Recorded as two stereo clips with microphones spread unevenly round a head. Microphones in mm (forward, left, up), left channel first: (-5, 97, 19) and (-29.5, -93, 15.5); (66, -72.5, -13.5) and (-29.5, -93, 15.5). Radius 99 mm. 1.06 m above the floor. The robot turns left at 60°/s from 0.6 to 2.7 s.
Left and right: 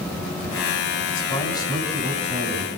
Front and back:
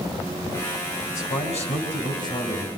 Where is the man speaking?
40° left, 7.5 m; by 2.7 s 55° right, 7.5 m.